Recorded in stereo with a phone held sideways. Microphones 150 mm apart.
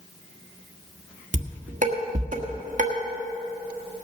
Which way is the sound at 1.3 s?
60° right (ahead or behind).